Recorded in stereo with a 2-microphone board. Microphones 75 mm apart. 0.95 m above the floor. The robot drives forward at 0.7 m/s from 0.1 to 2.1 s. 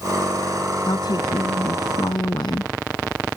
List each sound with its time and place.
0.9 s a woman speaking: 70° left (ahead or behind); by 2.7 s 75° left (ahead or behind)